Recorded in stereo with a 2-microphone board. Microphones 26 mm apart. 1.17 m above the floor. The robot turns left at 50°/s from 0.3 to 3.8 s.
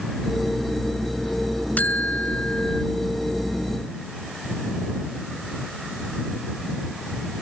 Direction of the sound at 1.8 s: 90° left.